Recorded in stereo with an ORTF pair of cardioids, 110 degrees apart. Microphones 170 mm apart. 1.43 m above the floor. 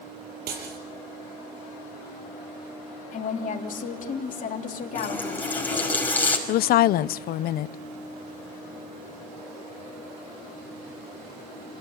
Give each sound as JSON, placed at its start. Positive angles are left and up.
{"t": 0.5, "sound": "breaking glass", "azimuth_deg": -70, "distance_m": 6.0}
{"t": 3.1, "sound": "a woman speaking", "azimuth_deg": 50, "distance_m": 3.0}
{"t": 5.0, "sound": "a running tap", "azimuth_deg": 10, "distance_m": 5.0}
{"t": 6.5, "sound": "a woman speaking", "azimuth_deg": 60, "distance_m": 0.6}